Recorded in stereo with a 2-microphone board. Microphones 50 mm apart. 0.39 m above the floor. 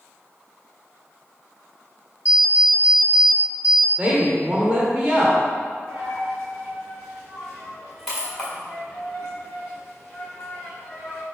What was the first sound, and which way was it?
An alarm clock, 30° right (ahead or behind).